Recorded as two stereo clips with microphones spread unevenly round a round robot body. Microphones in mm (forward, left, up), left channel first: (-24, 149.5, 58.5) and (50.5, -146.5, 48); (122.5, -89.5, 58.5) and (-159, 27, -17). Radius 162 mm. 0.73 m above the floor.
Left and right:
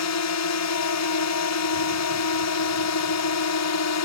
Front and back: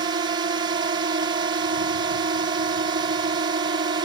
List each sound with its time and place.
0.0 s a drone: 100° left